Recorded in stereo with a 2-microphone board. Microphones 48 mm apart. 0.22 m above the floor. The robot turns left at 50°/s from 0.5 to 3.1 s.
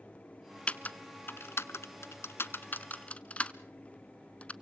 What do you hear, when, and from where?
0.7 s typing on a keyboard: 25° left (ahead or behind), 0.8 m; by 4.5 s 30° left (ahead or behind), 0.8 m